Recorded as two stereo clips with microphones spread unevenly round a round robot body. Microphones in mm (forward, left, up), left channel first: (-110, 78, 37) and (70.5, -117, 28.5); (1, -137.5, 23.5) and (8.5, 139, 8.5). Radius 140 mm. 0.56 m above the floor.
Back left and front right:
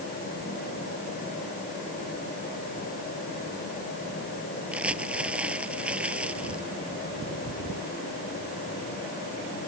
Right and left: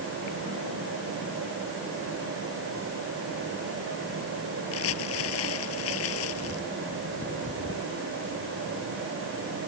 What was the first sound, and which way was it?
Crumpling, 135° right.